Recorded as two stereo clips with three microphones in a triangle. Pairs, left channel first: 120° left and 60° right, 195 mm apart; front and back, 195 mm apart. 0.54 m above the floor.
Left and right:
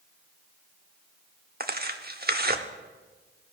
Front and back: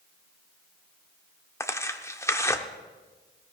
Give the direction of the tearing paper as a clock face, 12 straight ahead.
2 o'clock.